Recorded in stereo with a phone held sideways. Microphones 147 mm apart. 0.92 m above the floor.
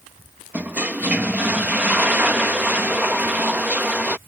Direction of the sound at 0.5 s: 10° right (ahead or behind).